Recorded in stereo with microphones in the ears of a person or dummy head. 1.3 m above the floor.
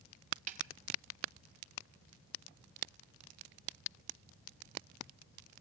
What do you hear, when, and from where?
0.5 s a snare drum: 40° right (ahead or behind), 1.8 m